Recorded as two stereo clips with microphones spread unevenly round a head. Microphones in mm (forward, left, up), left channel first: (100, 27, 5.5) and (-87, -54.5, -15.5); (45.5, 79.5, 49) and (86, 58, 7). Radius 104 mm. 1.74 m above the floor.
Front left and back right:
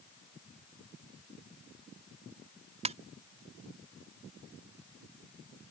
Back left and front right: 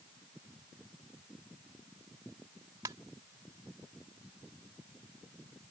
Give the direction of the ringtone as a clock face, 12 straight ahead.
3 o'clock.